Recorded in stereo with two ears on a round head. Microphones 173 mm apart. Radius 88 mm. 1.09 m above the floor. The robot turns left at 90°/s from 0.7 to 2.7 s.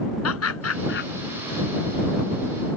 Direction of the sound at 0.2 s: 80° left.